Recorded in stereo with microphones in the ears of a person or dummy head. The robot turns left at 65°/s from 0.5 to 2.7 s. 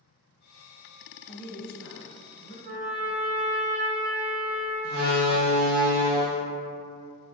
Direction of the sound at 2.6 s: 60° right (ahead or behind).